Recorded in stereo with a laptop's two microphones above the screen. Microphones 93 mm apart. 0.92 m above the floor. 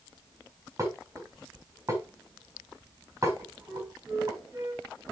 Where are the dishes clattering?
35° right (ahead or behind), 4 m.